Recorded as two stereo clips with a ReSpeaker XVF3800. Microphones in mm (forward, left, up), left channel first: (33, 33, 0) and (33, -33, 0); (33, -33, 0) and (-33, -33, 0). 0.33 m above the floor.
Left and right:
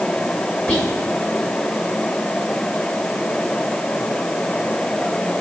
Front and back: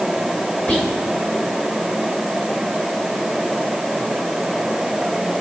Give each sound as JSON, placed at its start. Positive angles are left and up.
{"t": 0.7, "sound": "whispering", "azimuth_deg": 30, "distance_m": 1.1}